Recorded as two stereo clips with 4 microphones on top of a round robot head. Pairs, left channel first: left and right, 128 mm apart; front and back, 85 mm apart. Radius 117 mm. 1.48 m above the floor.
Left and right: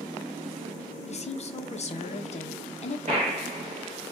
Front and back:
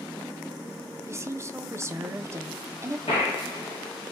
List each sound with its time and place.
1.1 s a woman speaking: 120° left, 0.6 m
3.1 s a gunshot: 35° right, 1.0 m